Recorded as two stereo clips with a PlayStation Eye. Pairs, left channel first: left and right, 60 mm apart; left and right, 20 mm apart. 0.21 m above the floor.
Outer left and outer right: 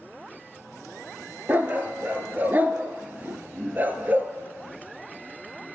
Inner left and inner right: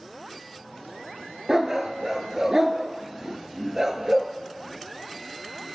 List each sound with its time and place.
1.5 s a dog barking: 30° right (ahead or behind), 0.9 m